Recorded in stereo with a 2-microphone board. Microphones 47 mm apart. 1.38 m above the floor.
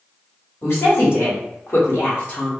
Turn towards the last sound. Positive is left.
turn(degrees=30)  # may be behind; listen again after turning